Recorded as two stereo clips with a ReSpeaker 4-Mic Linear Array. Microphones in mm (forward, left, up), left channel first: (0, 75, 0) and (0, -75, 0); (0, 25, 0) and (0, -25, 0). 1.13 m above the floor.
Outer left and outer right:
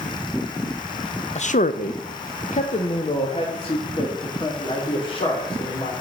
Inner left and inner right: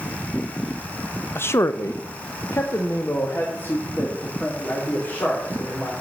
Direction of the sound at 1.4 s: 50° left (ahead or behind).